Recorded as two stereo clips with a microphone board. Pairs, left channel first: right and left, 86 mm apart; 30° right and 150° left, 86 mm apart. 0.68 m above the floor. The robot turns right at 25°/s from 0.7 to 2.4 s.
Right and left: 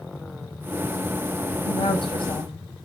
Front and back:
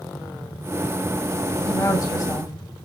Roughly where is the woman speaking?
Right.